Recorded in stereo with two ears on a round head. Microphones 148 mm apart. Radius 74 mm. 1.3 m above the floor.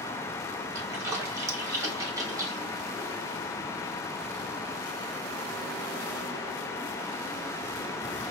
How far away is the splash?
About 0.9 m.